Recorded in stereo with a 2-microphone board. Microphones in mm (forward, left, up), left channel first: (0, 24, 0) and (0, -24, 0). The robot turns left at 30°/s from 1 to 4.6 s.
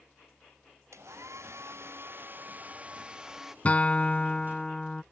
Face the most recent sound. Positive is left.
turn(degrees=10)  # may be behind; listen again after turning